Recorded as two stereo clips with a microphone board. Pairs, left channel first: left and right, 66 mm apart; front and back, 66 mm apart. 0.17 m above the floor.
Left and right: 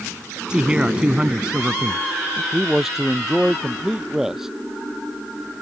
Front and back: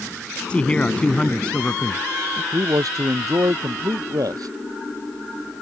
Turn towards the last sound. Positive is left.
turn(degrees=-175)